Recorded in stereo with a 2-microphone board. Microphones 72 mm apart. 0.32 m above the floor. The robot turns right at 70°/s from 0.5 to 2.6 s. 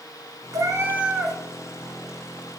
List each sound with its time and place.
0.5 s a cat meowing: 55° right, 0.6 m; by 1.4 s 5° left, 0.6 m